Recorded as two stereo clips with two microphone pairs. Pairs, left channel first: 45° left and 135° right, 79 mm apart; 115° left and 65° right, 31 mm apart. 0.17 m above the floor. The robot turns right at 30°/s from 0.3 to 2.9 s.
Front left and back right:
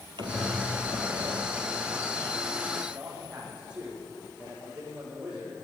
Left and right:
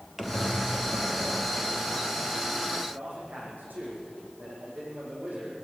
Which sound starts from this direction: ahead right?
A man speaking, at 2.9 s.